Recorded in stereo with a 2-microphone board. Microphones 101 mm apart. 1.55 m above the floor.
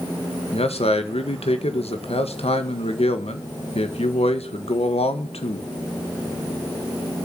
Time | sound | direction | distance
0.5 | a man speaking | 80° left | 1.5 m